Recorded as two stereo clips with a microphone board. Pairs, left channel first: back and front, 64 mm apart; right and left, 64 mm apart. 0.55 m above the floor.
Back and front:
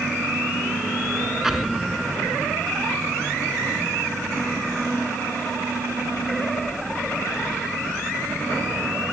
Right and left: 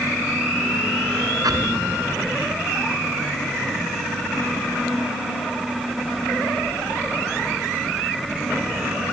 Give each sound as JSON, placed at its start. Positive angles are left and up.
{"t": 1.4, "sound": "an explosion", "azimuth_deg": 85}